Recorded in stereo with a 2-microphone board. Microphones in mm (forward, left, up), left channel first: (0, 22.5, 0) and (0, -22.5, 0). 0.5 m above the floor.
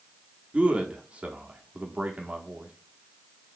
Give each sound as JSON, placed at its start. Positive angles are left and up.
{"t": 0.5, "sound": "a man speaking", "side_deg": -25, "distance_m": 0.7}